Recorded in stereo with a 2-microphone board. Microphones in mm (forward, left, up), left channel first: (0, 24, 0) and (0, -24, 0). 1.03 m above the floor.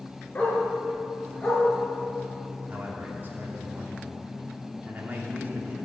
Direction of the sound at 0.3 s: 30° left (ahead or behind).